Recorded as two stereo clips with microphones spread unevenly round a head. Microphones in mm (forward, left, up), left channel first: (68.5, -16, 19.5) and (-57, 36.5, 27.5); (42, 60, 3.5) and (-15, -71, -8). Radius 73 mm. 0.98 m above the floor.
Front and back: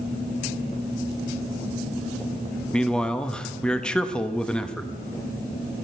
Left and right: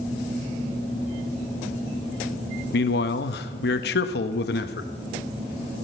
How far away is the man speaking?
About 1.3 m.